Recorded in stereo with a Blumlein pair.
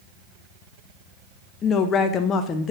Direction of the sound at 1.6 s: 25° left.